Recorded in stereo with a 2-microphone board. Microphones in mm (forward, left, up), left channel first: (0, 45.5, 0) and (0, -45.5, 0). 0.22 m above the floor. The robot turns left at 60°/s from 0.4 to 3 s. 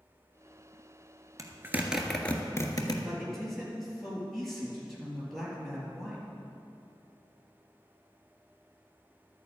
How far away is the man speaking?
About 4.5 m.